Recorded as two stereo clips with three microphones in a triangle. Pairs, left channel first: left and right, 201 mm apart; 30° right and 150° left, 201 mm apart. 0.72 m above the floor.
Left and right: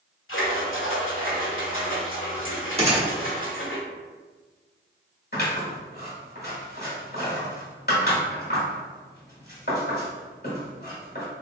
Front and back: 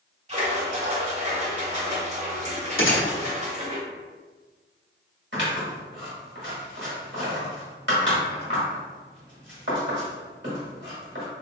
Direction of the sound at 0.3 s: 95° left.